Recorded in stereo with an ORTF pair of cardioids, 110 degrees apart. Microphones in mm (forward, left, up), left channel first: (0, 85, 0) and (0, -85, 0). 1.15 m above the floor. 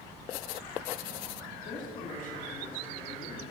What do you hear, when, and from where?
1.6 s a woman speaking: 50° left, 2.5 m